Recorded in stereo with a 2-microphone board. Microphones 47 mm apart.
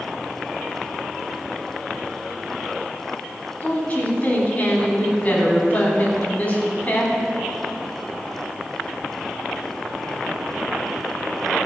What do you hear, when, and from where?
3.6 s a woman speaking: 30° left (ahead or behind), 3.5 m